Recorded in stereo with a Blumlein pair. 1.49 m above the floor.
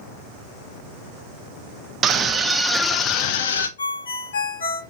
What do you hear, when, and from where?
2.0 s a scream: 25° right, 0.9 m; by 3.7 s 65° left, 0.7 m
3.8 s a ringtone: 65° left, 1.0 m